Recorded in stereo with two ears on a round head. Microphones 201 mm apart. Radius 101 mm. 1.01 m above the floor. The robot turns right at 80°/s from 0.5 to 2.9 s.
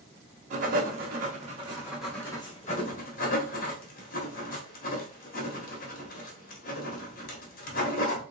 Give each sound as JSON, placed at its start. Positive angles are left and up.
{"t": 0.5, "sound": "writing", "side_deg": -35, "distance_m": 1.0}